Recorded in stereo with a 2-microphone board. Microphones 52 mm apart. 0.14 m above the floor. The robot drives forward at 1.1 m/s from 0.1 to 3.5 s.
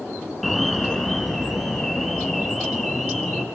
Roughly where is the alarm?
Centre.